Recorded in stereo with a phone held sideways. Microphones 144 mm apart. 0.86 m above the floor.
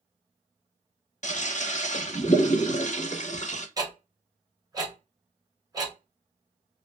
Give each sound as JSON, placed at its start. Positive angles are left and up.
{"t": 1.2, "sound": "a toilet flushing", "side_deg": 55, "distance_m": 0.6}
{"t": 3.8, "sound": "ticking", "side_deg": -25, "distance_m": 1.1}